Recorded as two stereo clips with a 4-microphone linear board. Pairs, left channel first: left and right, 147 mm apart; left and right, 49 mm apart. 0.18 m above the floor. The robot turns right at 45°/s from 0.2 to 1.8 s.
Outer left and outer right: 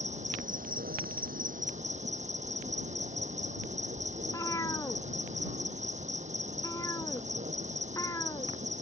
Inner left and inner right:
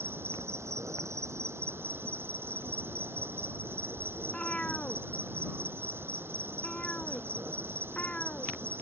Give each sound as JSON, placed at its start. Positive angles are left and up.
{"t": 0.0, "sound": "an insect", "azimuth_deg": -125}
{"t": 4.2, "sound": "a cat meowing", "side_deg": 20}